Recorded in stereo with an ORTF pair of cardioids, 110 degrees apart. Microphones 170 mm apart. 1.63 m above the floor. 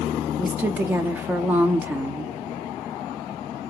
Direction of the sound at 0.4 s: 10° right.